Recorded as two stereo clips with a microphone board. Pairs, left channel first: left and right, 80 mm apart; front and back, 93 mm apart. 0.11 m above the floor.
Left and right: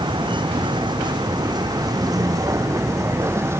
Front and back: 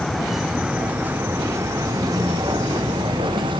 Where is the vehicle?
85° right; by 3.6 s 150° right.